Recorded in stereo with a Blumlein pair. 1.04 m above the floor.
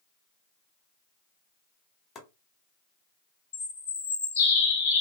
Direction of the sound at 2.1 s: 20° left.